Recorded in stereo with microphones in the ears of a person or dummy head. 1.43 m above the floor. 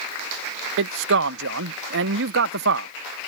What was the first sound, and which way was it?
A man speaking, 65° right (ahead or behind).